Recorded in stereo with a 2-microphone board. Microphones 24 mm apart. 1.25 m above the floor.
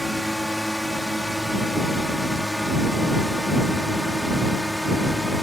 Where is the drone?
5° right (ahead or behind).